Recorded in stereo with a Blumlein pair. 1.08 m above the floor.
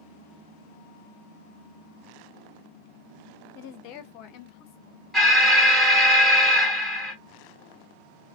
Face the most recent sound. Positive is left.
turn(degrees=-5)